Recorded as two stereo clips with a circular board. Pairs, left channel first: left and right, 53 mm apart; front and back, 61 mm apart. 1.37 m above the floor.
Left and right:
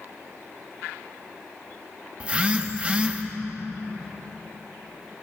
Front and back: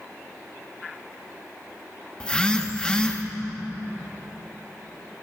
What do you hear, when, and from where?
2.2 s a phone buzzing: 55° right, 0.8 m